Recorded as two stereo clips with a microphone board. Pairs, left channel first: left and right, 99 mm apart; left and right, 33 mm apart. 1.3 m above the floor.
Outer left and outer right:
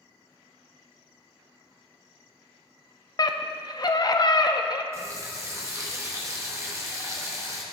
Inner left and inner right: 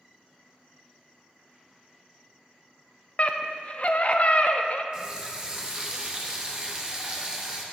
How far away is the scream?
About 0.5 m.